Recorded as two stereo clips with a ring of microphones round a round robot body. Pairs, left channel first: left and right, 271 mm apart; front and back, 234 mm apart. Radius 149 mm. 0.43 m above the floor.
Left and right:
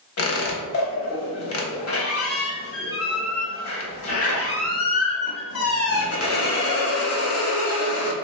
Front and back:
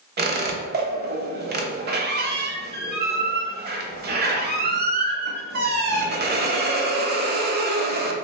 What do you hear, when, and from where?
0.2 s a squeak: 130° left, 0.9 m